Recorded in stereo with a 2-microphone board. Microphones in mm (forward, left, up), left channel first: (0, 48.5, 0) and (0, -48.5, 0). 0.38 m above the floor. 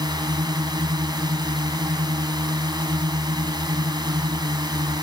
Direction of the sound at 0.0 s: 45° right (ahead or behind).